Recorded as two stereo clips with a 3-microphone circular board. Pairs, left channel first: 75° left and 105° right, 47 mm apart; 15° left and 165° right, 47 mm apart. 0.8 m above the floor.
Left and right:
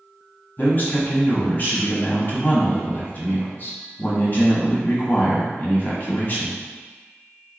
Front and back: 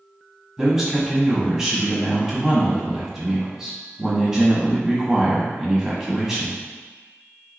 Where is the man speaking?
120° left, 1.0 m.